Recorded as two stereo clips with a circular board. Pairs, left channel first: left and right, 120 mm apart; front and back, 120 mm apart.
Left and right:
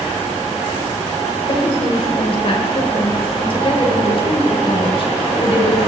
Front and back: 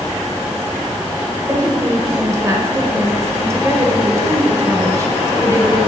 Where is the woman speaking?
120° left, 1.3 m.